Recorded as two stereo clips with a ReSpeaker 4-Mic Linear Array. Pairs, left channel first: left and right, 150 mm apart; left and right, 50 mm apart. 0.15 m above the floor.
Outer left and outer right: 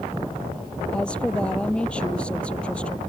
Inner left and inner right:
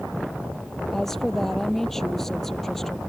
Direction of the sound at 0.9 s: 5° left (ahead or behind).